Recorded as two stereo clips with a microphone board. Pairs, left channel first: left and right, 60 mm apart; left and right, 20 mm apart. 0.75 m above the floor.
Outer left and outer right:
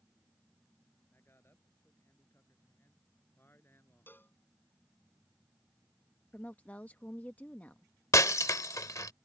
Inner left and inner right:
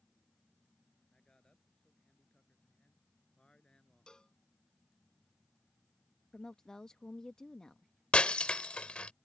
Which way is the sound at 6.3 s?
30° left (ahead or behind).